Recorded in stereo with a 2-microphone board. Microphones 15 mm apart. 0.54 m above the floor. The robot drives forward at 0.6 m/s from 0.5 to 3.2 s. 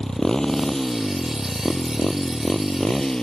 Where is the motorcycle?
40° left (ahead or behind); by 3.2 s 50° left (ahead or behind).